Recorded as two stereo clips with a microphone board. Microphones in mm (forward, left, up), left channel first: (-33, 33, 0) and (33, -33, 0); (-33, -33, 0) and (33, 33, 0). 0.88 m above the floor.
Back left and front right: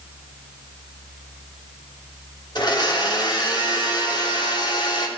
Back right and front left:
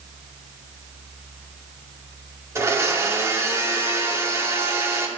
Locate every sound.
2.5 s a blender: 100° left, 2.5 m